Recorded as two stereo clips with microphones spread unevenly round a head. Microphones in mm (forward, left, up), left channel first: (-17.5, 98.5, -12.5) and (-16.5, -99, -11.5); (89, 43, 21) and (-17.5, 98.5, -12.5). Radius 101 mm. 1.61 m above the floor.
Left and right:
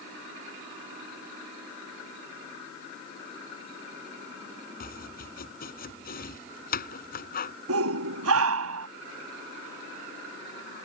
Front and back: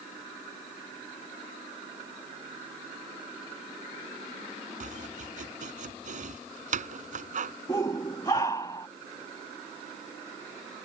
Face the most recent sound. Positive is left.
turn(degrees=-100)